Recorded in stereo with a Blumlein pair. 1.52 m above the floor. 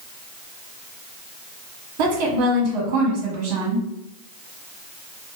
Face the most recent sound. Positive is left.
turn(degrees=-45)